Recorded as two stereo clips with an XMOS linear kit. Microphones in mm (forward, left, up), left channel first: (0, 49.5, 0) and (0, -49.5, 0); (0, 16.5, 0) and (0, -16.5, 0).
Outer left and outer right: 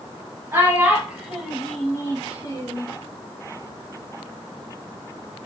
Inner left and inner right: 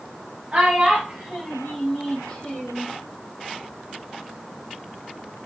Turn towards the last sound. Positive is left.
turn(degrees=45)  # may be behind; listen again after turning